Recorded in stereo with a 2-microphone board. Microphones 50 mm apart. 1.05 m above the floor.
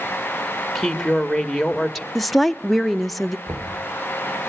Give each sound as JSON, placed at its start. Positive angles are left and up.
{"t": 0.8, "sound": "a woman speaking", "side_deg": 5, "distance_m": 1.6}
{"t": 2.1, "sound": "a woman speaking", "side_deg": 0, "distance_m": 0.6}
{"t": 3.5, "sound": "knocking", "side_deg": -75, "distance_m": 2.0}